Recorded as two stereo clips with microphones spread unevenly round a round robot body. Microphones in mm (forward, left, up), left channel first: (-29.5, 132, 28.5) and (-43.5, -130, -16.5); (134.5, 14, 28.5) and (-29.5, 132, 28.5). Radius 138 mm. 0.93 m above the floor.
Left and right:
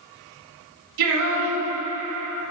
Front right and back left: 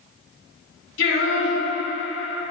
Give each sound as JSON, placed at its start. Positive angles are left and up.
{"t": 1.0, "sound": "singing", "azimuth_deg": -80, "distance_m": 2.0}